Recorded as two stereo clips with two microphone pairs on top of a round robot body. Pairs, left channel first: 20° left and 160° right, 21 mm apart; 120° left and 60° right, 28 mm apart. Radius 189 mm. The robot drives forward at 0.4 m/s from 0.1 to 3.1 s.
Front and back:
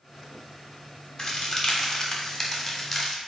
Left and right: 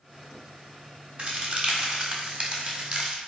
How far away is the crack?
About 1.7 m.